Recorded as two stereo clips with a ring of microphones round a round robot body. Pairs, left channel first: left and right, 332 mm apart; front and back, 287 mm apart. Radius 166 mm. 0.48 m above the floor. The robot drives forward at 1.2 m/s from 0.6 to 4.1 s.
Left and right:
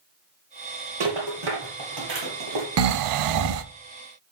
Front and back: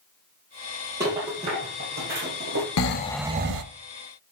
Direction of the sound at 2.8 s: 45° right.